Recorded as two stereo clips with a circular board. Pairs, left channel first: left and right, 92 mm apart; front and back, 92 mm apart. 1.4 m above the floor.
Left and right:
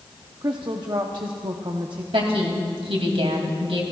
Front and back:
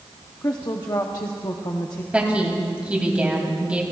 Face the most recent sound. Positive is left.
turn(degrees=-105)